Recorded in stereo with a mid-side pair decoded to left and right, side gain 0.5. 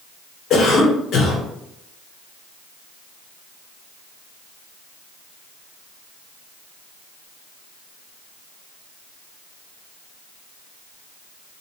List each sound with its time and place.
0.5 s a cough: 55° left, 1.3 m